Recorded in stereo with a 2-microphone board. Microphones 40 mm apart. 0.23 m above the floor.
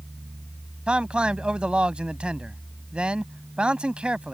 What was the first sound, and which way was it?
A man speaking, 25° right (ahead or behind).